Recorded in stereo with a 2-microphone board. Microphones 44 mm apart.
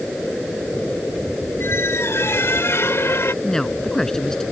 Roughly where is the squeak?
Left.